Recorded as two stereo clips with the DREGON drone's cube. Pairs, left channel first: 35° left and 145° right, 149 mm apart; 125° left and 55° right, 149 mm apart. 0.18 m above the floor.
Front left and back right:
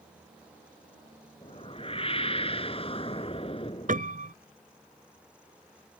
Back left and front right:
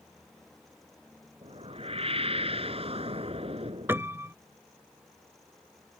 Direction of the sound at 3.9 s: 130° right.